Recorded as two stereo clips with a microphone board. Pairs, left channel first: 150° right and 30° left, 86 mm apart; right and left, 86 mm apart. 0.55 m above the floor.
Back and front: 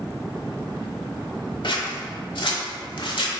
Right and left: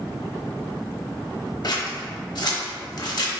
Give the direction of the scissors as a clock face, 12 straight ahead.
4 o'clock.